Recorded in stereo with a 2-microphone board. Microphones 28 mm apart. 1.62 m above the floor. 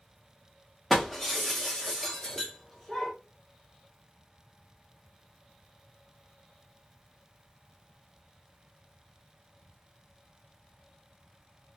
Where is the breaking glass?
5° left (ahead or behind), 0.9 m.